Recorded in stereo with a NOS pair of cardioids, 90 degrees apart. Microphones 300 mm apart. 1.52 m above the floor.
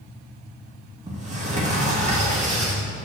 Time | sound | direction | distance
1.1 | a sliding door | 25° right | 2.5 m